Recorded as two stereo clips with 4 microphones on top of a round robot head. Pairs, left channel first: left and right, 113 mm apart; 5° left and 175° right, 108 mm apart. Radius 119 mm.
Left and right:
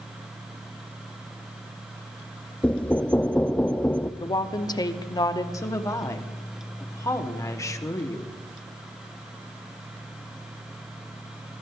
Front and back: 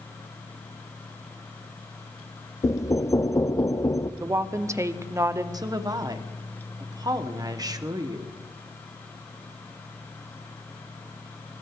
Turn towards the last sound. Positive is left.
turn(degrees=145)